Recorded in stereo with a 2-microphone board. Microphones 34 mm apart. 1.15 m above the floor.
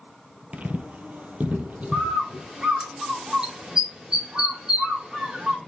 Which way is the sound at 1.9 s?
25° right (ahead or behind).